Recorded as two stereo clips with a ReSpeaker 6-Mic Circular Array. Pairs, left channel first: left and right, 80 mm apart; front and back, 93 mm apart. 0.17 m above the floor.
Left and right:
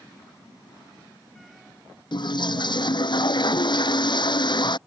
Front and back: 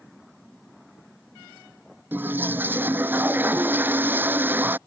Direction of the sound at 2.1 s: 110° left.